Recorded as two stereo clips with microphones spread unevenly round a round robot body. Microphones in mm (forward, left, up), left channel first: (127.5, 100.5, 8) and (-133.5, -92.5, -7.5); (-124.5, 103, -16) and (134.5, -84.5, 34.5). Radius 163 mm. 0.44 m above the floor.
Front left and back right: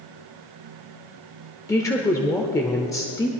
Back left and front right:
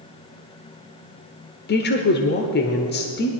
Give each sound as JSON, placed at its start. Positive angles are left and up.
{"t": 1.7, "sound": "a woman speaking", "azimuth_deg": 115, "distance_m": 1.0}